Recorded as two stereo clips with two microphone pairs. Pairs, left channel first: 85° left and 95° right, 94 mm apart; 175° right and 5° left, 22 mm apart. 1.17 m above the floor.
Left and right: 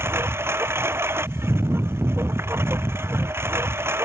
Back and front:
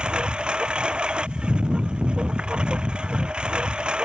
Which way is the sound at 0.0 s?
35° right.